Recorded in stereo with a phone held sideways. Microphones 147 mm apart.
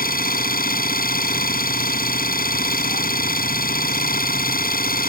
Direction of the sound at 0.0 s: 80° left.